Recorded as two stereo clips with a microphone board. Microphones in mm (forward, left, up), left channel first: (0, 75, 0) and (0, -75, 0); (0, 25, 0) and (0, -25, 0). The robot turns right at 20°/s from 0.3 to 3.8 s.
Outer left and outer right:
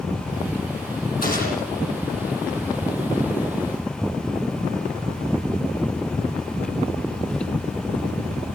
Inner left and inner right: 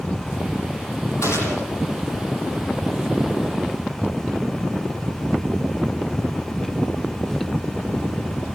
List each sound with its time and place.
1.2 s a gunshot: 80° left, 10 m; by 1.7 s 70° left (ahead or behind), 10 m